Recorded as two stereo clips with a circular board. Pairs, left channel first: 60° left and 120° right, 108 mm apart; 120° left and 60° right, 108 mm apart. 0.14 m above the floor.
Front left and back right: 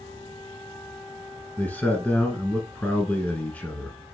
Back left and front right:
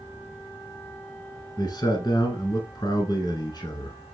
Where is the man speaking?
120° left, 1.3 m.